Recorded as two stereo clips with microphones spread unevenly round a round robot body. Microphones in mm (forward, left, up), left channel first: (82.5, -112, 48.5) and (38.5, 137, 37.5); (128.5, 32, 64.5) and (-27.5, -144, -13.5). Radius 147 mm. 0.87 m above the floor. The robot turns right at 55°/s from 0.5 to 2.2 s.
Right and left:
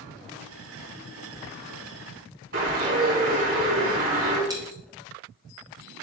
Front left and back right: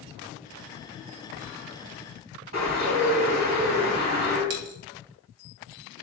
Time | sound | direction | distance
2.5 | a bird | 160° left | 3.5 m
4.5 | a dropped coin | 175° left | 1.1 m